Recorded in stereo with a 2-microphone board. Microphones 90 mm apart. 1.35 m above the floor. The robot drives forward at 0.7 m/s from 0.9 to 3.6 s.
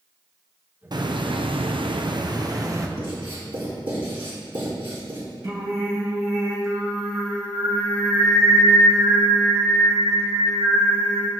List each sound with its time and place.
0.9 s a hiss: 55° right (ahead or behind), 0.9 m; by 2.9 s 40° right (ahead or behind), 1.2 m
3.0 s writing: 80° right, 4 m; by 5.2 s 75° right (ahead or behind), 4 m
5.4 s singing: 35° right (ahead or behind), 3 m